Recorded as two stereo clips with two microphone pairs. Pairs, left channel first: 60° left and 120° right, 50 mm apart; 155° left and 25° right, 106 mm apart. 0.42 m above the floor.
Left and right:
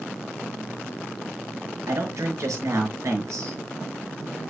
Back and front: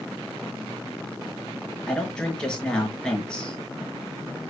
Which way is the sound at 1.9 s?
125° right.